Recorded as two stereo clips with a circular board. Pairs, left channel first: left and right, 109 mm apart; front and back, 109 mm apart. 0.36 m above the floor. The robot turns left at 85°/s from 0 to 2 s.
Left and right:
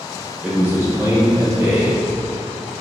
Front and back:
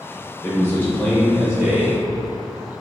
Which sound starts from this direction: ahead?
A man speaking, at 0.4 s.